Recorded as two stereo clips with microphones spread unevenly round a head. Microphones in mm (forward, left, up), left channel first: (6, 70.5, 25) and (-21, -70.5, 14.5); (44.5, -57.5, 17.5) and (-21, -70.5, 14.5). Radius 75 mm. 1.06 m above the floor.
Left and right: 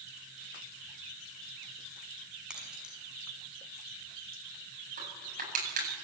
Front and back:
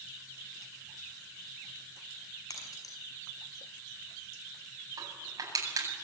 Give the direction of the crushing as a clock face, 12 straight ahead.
5 o'clock.